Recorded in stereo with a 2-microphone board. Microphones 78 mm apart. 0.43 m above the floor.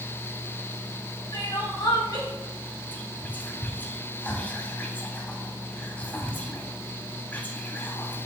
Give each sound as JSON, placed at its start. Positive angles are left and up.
{"t": 1.3, "sound": "crying", "side_deg": 60, "distance_m": 2.5}
{"t": 2.9, "sound": "whispering", "side_deg": 25, "distance_m": 0.8}